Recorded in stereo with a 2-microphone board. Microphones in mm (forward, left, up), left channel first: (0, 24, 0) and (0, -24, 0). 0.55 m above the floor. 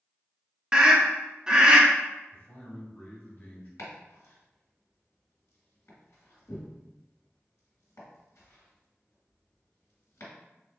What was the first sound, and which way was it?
A scream, 15° right (ahead or behind).